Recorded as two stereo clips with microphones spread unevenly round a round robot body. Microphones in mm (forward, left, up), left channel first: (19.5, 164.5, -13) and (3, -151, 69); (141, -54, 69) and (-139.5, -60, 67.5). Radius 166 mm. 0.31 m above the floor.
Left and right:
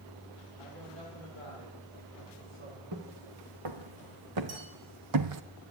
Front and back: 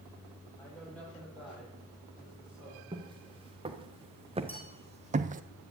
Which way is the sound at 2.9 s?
105° right.